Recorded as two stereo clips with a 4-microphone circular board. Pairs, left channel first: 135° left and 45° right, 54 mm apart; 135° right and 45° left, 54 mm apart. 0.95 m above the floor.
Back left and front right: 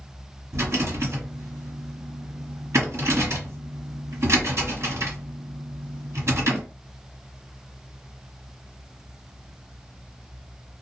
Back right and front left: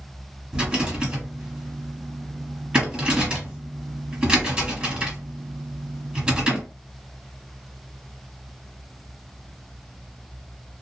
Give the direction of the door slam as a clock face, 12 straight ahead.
No door slam in this recording.